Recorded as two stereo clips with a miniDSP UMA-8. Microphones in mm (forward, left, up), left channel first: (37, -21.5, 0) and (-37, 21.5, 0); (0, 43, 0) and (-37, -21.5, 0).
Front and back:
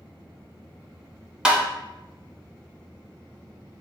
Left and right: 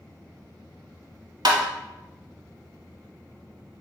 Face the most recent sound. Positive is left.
turn(degrees=-130)